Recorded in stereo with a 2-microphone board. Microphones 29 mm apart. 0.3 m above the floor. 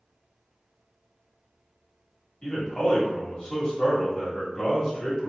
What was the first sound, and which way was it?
A man speaking, 25° left (ahead or behind).